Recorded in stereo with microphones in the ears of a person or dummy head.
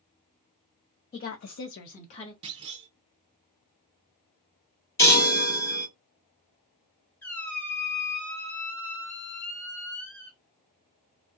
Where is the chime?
20° left (ahead or behind), 1.1 m.